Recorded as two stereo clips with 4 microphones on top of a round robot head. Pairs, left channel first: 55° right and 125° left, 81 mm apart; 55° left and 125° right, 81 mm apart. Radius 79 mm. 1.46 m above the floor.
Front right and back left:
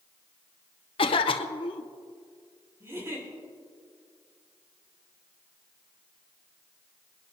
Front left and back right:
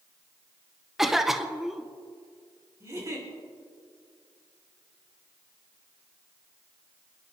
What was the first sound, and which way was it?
A cough, 40° right.